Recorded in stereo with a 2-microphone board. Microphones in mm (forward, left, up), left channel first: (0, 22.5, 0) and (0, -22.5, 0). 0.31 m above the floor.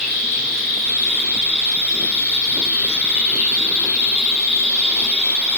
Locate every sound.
0.0 s an insect: 25° right (ahead or behind), 3 m